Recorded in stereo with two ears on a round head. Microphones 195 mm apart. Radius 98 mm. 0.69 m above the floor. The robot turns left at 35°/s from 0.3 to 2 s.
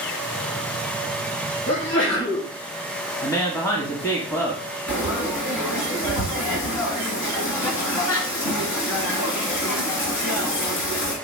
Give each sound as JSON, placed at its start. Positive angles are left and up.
{"t": 1.7, "sound": "a sneeze", "side_deg": 75, "distance_m": 4.0}
{"t": 3.2, "sound": "a woman speaking", "side_deg": 15, "distance_m": 1.4}
{"t": 4.9, "sound": "frying", "side_deg": 85, "distance_m": 2.0}